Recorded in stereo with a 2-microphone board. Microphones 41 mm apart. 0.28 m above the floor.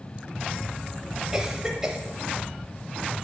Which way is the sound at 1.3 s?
15° right (ahead or behind).